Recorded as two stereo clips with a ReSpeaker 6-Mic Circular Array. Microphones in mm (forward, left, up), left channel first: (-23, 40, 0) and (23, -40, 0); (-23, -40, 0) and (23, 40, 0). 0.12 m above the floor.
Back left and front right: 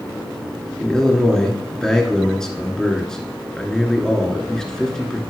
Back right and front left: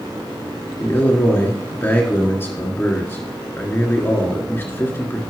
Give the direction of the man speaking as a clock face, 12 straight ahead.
5 o'clock.